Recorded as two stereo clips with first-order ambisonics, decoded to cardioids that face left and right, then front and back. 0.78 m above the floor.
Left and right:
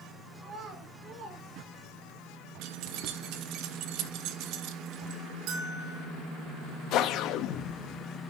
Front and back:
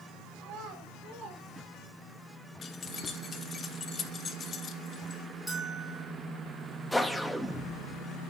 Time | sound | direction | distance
0.4 | a child speaking | 160° right | 2 m
2.6 | keys jangling | 65° right | 0.7 m
5.5 | a bell | 90° right | 2 m
6.9 | a whoosh | 90° left | 0.6 m